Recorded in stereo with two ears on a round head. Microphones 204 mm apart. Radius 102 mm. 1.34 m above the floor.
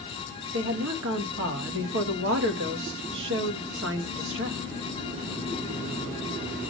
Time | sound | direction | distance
0.5 | a woman speaking | 60° right (ahead or behind) | 1.9 m